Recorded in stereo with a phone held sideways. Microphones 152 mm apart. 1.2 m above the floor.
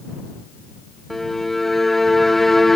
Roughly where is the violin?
Centre.